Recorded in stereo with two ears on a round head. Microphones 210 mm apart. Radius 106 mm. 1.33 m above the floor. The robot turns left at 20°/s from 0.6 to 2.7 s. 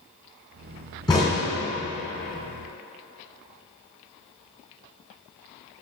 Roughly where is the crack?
Centre.